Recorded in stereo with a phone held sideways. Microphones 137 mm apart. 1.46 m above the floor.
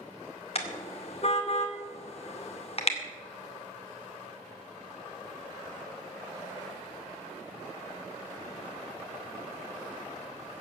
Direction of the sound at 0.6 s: 45° left (ahead or behind).